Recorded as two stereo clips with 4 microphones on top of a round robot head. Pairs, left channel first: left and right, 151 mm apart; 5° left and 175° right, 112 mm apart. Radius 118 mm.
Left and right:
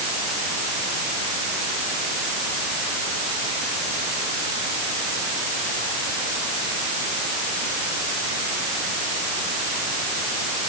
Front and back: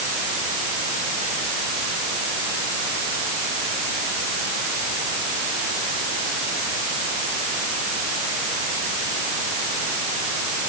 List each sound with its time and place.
Only background noise.